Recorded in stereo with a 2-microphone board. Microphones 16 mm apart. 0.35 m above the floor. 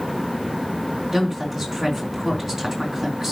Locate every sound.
1.1 s a woman speaking: 30° right (ahead or behind), 4.5 m